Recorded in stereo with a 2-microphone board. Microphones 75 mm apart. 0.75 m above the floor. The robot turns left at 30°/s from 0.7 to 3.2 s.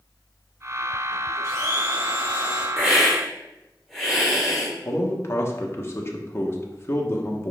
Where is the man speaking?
35° left (ahead or behind), 1.1 m.